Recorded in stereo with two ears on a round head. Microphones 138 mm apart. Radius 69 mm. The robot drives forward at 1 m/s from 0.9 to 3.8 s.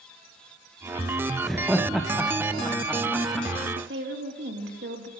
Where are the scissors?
No scissors in this recording.